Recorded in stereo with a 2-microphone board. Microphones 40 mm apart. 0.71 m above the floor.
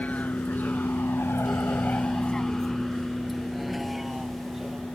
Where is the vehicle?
40° left (ahead or behind); by 5.0 s 10° right (ahead or behind).